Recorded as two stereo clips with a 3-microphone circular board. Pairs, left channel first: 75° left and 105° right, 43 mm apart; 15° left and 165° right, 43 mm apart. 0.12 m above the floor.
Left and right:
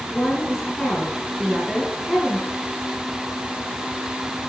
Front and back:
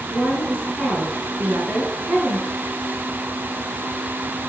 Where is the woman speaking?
160° left, 5.5 m.